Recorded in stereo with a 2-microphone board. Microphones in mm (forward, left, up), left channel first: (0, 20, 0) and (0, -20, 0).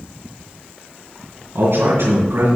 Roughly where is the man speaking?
Right.